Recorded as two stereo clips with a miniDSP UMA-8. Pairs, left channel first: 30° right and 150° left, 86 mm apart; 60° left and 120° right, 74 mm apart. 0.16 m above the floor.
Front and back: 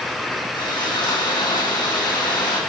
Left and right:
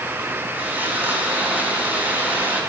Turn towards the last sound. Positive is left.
turn(degrees=-55)